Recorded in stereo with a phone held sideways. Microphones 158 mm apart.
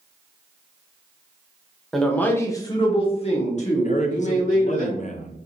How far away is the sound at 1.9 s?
About 0.8 m.